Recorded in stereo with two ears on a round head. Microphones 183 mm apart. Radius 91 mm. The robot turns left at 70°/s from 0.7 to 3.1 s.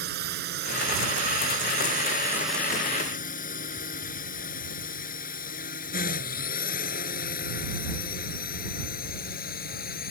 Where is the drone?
50° right (ahead or behind); by 10.1 s 50° left (ahead or behind).